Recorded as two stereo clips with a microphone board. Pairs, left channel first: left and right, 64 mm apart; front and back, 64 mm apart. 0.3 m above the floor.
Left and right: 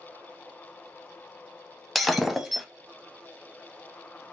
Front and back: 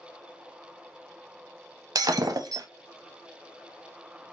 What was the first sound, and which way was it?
Breaking glass, straight behind.